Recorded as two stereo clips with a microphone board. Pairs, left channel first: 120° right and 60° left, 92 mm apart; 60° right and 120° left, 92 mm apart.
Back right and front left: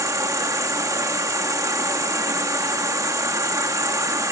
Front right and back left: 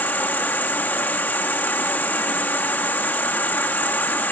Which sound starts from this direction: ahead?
An insect, at 0.0 s.